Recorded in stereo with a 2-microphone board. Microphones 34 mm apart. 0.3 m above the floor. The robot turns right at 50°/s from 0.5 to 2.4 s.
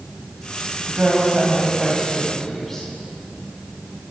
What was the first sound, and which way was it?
A woman speaking, 60° right.